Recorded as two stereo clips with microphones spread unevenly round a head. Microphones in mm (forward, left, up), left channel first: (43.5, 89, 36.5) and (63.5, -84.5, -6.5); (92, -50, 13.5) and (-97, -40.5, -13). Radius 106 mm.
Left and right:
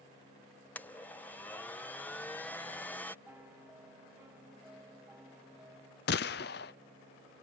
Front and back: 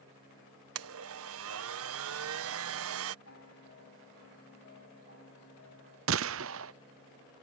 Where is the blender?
170° left.